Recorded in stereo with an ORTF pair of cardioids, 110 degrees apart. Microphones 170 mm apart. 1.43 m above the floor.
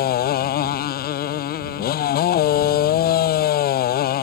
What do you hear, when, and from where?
0.0 s a motorcycle: 65° left